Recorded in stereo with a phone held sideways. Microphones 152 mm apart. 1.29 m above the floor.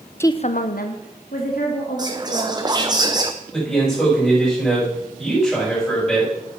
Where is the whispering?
25° right (ahead or behind), 0.5 m.